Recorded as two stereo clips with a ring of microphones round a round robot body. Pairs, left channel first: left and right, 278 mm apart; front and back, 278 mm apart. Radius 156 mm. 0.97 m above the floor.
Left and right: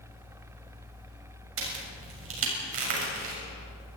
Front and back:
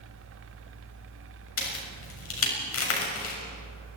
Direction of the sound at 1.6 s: 40° right.